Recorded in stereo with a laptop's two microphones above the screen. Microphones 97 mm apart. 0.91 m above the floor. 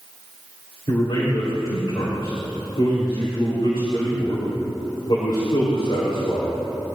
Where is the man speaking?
55° left (ahead or behind), 3.5 m.